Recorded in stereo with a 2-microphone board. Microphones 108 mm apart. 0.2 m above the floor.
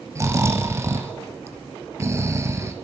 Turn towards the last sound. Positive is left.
turn(degrees=-25)  # may be behind; listen again after turning